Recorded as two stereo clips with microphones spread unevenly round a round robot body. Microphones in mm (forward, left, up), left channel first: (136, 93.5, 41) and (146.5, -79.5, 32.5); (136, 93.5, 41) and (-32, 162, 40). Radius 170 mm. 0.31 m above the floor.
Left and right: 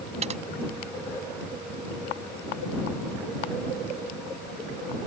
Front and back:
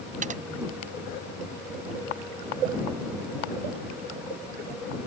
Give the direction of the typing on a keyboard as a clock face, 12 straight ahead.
5 o'clock.